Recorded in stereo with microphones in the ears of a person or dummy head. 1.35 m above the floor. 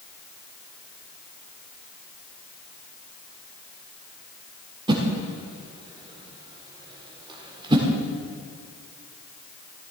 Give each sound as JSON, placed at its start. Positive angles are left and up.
{"t": 4.9, "sound": "a whoosh", "side_deg": -20, "distance_m": 1.6}